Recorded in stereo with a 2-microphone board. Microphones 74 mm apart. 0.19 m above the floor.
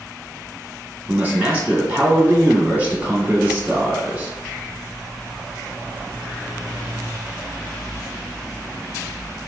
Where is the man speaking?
20° right (ahead or behind), 1.4 m.